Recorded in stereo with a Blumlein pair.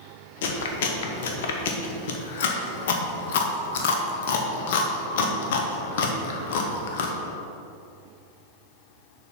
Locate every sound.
0.4 s chewing: 55° left, 1.0 m